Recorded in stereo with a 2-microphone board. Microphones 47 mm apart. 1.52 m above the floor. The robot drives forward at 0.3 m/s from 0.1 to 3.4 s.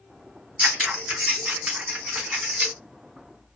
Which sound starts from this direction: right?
Scissors, at 0.6 s.